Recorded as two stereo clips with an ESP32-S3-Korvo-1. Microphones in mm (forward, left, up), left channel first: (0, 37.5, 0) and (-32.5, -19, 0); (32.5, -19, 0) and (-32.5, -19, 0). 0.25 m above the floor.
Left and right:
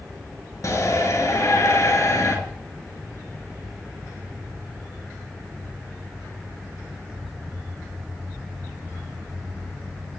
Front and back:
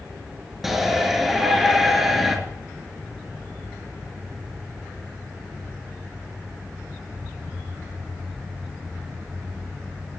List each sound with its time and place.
0.6 s a shout: 95° left, 4 m